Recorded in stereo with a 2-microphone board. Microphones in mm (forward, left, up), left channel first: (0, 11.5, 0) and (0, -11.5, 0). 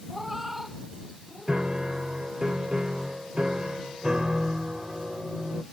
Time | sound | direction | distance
0.1 | a cat meowing | 10° right (ahead or behind) | ?
1.5 | a piano | 40° right (ahead or behind) | ?